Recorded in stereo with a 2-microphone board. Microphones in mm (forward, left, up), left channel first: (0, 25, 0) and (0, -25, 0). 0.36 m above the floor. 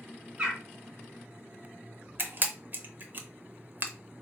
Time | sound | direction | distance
0.4 | a bird | 20° right (ahead or behind) | 1.3 m
2.2 | a camera shutter | 45° right (ahead or behind) | 0.6 m